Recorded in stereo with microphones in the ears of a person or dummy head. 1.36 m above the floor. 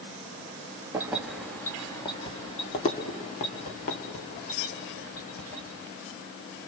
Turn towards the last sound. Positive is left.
turn(degrees=60)  # may be behind; listen again after turning